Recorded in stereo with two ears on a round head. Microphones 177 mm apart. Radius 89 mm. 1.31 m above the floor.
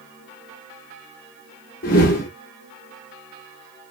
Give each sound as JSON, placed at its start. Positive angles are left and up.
{"t": 1.8, "sound": "a whoosh", "side_deg": 45, "distance_m": 1.1}